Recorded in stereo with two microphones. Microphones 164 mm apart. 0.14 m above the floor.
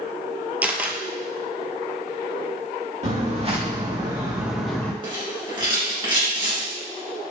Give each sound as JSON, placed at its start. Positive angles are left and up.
{"t": 0.6, "sound": "a camera shutter", "side_deg": -10, "distance_m": 0.6}
{"t": 3.0, "sound": "footsteps", "side_deg": -45, "distance_m": 2.0}
{"t": 5.0, "sound": "a rattle", "side_deg": -30, "distance_m": 2.0}